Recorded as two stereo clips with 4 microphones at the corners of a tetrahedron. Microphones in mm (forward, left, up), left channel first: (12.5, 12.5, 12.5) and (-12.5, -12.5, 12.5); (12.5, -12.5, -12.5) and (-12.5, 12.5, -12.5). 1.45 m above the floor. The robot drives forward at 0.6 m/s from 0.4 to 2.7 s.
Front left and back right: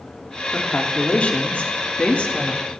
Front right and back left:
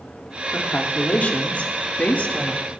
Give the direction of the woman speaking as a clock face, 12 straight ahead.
12 o'clock.